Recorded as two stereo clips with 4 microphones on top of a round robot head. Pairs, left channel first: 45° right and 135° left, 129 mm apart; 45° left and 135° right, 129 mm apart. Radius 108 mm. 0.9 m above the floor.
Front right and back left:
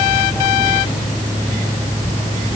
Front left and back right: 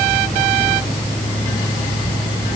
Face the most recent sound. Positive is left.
No sound to turn to.